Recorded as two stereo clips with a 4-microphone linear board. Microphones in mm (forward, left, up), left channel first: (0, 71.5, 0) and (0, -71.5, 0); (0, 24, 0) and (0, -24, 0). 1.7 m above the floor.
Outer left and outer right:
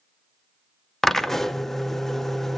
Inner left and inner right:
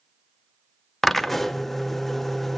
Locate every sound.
1.0 s a drill: centre (ahead or behind), 0.7 m